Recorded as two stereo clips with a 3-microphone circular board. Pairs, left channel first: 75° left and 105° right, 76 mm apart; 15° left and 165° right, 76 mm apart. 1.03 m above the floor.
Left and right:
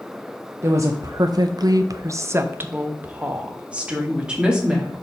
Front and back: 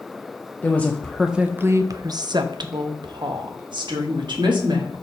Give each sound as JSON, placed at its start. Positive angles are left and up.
{"t": 0.6, "sound": "a woman speaking", "azimuth_deg": -50, "distance_m": 0.8}